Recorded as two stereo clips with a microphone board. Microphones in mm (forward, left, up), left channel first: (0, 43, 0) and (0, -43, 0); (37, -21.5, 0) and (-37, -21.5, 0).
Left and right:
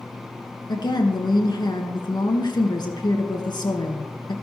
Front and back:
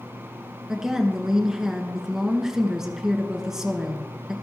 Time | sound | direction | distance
0.7 | a woman speaking | 100° left | 3 m